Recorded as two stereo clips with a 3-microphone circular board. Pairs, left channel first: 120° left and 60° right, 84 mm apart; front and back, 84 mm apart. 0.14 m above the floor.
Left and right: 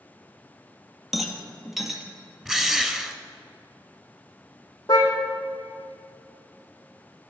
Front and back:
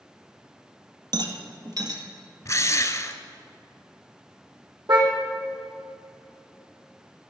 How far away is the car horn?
About 3 m.